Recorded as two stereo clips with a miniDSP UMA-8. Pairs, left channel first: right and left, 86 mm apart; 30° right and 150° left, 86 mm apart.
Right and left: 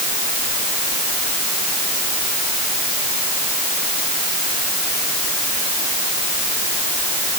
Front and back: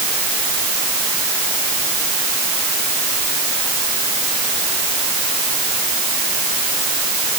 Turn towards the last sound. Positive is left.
No sound to turn to.